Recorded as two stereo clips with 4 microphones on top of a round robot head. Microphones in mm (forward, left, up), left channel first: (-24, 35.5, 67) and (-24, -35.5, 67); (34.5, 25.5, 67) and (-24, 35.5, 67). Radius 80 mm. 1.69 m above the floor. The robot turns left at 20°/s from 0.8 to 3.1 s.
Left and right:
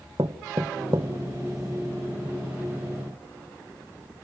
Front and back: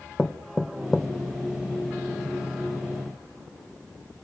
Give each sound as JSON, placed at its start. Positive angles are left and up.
{"t": 0.2, "sound": "knocking", "azimuth_deg": -100, "distance_m": 0.8}